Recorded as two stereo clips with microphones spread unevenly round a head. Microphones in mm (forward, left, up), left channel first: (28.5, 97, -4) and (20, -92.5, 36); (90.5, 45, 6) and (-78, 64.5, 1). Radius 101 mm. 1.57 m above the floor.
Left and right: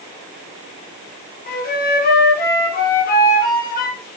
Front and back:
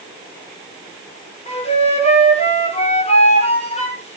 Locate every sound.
1.5 s a flute: 45° left, 6.5 m